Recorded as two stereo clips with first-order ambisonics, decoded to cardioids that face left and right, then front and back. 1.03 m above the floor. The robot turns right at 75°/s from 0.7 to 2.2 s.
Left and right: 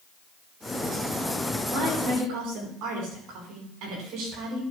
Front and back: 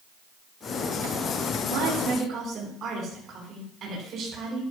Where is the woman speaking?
160° right, 9 m; by 4.6 s 120° right, 9 m.